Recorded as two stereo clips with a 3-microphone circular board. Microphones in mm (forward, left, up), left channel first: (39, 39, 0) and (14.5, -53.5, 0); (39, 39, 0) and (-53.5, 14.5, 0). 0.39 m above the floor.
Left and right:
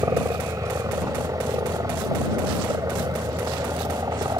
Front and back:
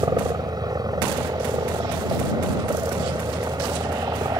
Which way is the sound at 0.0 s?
145° right.